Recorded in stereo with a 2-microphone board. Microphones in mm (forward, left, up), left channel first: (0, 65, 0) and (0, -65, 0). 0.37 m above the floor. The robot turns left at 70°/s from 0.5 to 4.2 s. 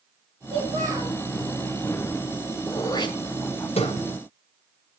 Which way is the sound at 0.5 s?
45° right.